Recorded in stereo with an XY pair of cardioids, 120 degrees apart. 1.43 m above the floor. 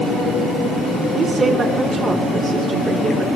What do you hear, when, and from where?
1.1 s a woman speaking: 35° right, 3.5 m